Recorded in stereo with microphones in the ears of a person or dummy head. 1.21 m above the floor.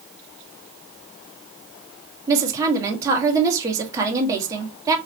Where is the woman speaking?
10° right (ahead or behind), 1.5 m.